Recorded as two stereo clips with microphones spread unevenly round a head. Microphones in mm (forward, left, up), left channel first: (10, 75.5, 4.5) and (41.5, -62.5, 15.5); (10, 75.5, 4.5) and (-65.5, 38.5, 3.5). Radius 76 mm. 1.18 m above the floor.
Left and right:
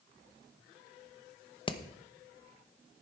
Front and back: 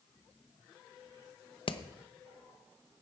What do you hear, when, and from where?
1.7 s hammering: 45° left, 0.9 m